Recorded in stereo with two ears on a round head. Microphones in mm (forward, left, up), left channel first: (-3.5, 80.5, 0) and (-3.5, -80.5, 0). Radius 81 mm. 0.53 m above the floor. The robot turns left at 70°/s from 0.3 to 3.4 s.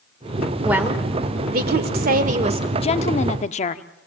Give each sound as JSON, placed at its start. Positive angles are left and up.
{"t": 0.6, "sound": "a woman speaking", "azimuth_deg": -5, "distance_m": 2.0}
{"t": 2.8, "sound": "a woman speaking", "azimuth_deg": 125, "distance_m": 0.7}